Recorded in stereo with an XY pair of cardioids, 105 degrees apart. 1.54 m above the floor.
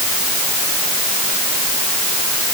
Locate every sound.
Only background noise.